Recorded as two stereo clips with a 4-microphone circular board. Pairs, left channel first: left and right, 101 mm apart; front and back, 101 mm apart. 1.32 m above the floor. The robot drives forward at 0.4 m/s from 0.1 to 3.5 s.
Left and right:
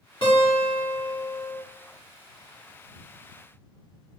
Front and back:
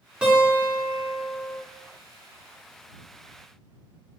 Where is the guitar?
100° left, 3 m; by 1.6 s 110° left, 3 m.